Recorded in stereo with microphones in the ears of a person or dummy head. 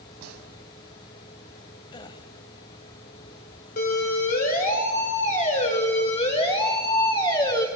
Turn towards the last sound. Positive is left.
turn(degrees=20)  # may be behind; listen again after turning